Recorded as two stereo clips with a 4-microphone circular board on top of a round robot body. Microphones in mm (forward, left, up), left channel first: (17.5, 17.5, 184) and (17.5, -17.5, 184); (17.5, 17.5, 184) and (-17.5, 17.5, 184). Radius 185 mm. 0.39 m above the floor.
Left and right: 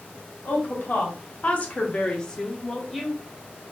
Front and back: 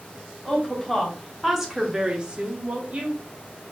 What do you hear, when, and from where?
0.5 s a woman speaking: 80° left, 1.3 m; by 3.2 s 170° right, 1.0 m